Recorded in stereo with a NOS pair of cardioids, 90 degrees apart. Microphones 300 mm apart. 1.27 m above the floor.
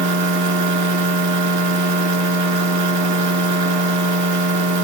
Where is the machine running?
70° right, 2 m.